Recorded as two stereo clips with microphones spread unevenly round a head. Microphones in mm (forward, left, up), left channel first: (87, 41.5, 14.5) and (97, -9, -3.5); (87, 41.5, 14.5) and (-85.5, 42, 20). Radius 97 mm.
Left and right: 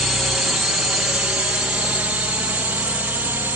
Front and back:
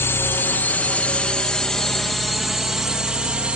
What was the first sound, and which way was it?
A drone, 50° right.